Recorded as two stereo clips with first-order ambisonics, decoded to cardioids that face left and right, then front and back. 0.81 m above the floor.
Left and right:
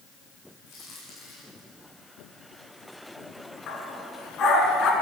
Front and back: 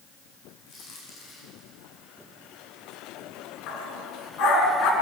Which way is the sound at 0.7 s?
30° left.